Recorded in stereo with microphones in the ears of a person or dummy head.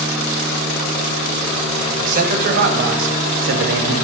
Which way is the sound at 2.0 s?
45° right (ahead or behind).